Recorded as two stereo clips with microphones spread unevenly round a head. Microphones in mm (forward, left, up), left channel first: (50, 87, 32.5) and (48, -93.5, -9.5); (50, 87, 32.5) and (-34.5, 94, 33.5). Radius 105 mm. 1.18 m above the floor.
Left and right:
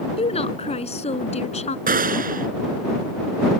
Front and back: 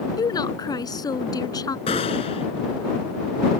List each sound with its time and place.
0.2 s a woman speaking: 35° left
1.9 s a gunshot: 45° right